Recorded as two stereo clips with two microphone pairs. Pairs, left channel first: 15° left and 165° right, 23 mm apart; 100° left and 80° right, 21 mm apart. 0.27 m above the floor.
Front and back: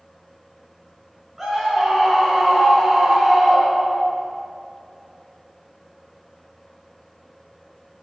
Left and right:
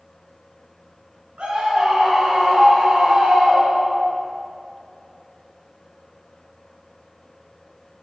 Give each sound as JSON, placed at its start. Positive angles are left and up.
{"t": 1.4, "sound": "a scream", "azimuth_deg": -80, "distance_m": 4.0}